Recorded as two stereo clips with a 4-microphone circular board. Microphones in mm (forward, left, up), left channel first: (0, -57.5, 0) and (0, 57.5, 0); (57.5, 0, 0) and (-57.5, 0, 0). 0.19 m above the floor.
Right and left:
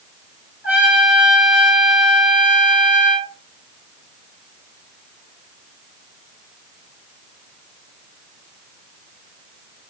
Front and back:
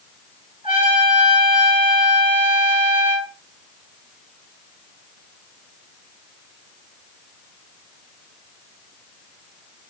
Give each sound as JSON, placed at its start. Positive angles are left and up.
{"t": 0.6, "sound": "a trumpet", "azimuth_deg": 165, "distance_m": 1.2}